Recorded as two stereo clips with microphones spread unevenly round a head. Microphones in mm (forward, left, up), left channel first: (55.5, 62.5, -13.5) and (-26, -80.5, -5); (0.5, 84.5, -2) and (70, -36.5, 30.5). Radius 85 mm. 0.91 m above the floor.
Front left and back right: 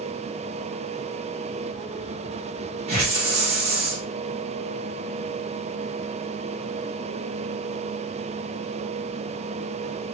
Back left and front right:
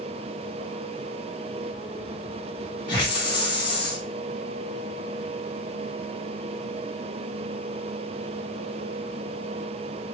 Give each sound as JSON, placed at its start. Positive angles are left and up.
{"t": 2.9, "sound": "a hiss", "azimuth_deg": -175, "distance_m": 0.7}